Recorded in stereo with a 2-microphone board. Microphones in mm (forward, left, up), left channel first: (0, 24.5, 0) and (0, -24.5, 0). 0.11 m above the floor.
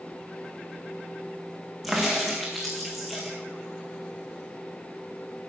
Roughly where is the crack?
Centre.